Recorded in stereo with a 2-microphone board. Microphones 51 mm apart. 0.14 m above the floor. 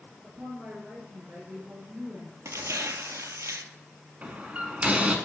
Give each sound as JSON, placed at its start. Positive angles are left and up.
{"t": 0.2, "sound": "a woman speaking", "side_deg": -40, "distance_m": 2.0}
{"t": 2.5, "sound": "tearing paper", "side_deg": -75, "distance_m": 0.5}
{"t": 4.2, "sound": "a door slam", "side_deg": -25, "distance_m": 0.8}